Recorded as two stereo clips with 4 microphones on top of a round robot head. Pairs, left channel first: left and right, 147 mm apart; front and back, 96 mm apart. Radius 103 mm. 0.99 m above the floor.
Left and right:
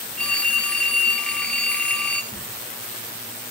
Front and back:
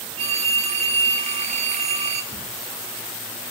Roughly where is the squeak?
Behind.